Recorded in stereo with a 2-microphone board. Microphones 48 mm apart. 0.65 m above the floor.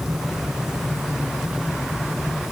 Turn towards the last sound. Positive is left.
No sound to turn to.